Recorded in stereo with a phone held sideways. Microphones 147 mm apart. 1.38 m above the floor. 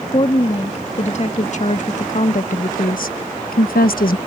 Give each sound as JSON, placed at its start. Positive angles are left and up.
{"t": 0.1, "sound": "a woman speaking", "side_deg": 45}